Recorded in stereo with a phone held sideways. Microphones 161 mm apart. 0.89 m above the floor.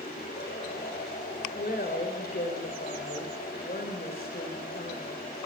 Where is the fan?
75° left (ahead or behind), 9 m.